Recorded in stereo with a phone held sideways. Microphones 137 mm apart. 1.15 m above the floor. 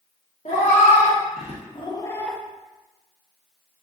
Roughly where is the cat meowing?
Left.